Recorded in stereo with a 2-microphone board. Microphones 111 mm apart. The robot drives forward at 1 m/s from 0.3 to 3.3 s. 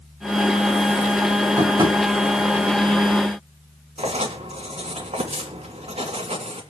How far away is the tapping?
About 3 m.